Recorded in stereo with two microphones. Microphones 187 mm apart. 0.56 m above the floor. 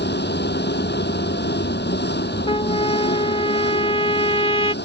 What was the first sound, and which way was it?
An engine running, 65° left (ahead or behind).